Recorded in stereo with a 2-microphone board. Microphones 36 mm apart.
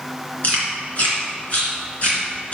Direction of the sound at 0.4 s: 45° left (ahead or behind).